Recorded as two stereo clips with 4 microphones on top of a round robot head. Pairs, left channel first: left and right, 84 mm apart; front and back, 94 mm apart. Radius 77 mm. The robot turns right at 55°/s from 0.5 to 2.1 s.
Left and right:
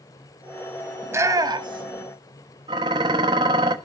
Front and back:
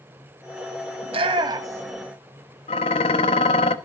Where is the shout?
155° right, 2.5 m; by 2.0 s 100° right, 2.5 m.